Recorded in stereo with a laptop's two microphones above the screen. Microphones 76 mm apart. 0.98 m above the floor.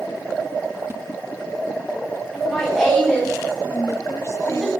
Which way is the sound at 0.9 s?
35° right (ahead or behind).